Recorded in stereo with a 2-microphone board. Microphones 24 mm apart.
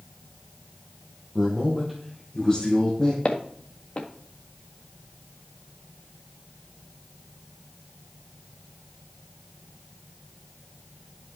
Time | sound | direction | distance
1.4 | a man speaking | 20° right (ahead or behind) | 3 m
3.2 | footsteps | 50° left (ahead or behind) | 1.8 m